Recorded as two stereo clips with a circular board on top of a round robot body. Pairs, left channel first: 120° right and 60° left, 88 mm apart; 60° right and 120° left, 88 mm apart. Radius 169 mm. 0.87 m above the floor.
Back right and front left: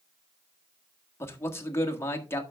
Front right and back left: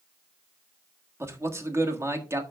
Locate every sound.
1.2 s a man speaking: straight behind, 1.8 m